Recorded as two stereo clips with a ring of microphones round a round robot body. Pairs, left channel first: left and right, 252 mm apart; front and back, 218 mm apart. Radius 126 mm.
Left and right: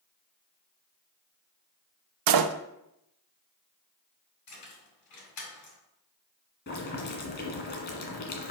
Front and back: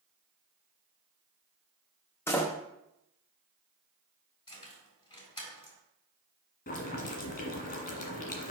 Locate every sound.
2.3 s a door slam: 80° right, 0.6 m
4.5 s keys jangling: 70° left, 4 m
6.7 s boiling: 40° left, 1.7 m